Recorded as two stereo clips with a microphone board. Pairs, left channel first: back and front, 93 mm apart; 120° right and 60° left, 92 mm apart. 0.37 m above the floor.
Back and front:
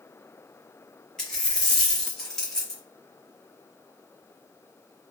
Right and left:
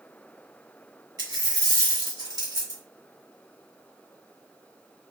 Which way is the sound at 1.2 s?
95° left.